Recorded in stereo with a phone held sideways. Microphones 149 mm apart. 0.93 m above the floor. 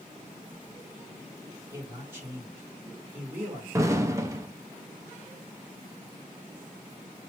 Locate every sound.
1.7 s a man speaking: 15° right (ahead or behind), 2.5 m
3.7 s an explosion: 20° right (ahead or behind), 0.6 m